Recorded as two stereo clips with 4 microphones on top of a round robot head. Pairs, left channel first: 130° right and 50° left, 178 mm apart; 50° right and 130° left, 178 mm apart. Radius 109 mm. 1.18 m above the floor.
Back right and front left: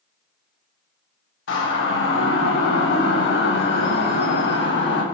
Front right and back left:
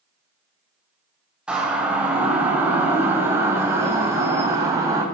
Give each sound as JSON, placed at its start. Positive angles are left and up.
{"t": 1.5, "sound": "a siren", "azimuth_deg": -145, "distance_m": 6.5}